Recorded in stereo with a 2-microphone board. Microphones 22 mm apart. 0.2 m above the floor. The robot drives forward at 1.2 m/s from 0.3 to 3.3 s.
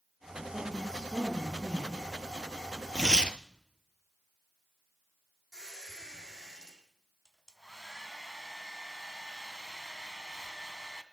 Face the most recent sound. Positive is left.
turn(degrees=-30)  # may be behind; listen again after turning